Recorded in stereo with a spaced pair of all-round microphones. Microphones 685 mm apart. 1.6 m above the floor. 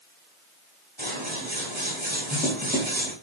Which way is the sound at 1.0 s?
15° right (ahead or behind).